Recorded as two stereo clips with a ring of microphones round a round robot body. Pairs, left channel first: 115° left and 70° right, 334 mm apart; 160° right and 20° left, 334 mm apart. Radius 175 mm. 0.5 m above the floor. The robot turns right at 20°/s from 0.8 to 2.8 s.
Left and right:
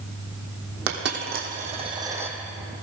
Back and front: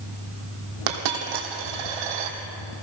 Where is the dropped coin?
10° right, 1.8 m; by 2.4 s 20° left, 1.8 m.